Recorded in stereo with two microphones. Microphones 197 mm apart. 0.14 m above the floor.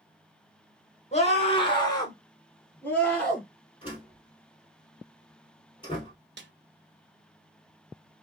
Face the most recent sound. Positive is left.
turn(degrees=-65)  # may be behind; listen again after turning